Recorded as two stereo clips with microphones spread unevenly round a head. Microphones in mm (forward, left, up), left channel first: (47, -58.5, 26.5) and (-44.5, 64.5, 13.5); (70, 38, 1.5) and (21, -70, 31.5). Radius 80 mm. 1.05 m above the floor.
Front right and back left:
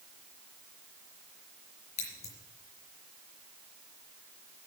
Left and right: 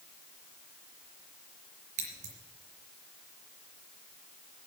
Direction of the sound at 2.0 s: 105° right.